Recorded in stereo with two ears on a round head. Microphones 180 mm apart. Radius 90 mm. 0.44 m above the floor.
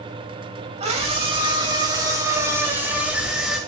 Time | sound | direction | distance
0.8 | a scream | 30° right (ahead or behind) | 3 m